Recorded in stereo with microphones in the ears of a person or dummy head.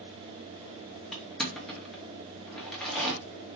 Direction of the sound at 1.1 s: Centre (ahead or behind).